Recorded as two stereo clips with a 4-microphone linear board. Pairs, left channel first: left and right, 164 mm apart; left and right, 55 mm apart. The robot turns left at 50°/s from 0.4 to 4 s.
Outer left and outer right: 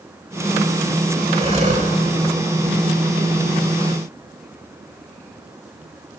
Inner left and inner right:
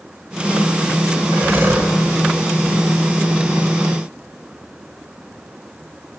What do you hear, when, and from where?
1.3 s breathing: 30° right (ahead or behind), 1.4 m; by 1.9 s 60° right (ahead or behind), 1.4 m